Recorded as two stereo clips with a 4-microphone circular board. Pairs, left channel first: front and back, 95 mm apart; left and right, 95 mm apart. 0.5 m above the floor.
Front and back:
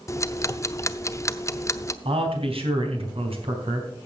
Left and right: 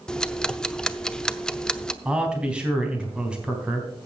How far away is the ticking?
About 0.6 m.